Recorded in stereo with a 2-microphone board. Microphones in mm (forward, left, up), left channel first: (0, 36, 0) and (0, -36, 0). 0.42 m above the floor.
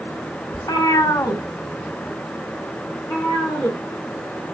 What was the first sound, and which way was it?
A cat meowing, 60° left (ahead or behind).